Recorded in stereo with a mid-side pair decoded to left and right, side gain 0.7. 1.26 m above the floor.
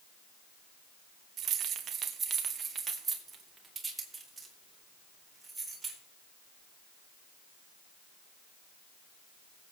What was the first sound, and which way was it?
Keys jangling, 50° right.